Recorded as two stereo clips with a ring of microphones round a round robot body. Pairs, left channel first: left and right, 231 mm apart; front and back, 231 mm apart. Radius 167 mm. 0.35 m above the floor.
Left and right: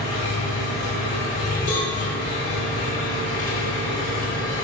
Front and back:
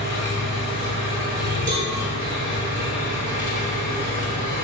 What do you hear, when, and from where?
0.0 s an engine running: 140° left, 1.8 m
1.7 s a cowbell: 140° left, 1.3 m